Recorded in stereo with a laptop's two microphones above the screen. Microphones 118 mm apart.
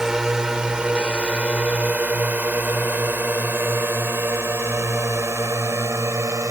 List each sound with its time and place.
0.0 s a drone: 5° right (ahead or behind); by 6.5 s 25° right (ahead or behind)